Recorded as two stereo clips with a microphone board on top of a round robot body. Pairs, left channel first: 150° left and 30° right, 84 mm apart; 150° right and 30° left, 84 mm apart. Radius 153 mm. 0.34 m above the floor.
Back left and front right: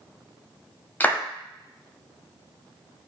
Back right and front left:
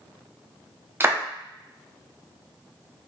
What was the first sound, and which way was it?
A clap, 85° left.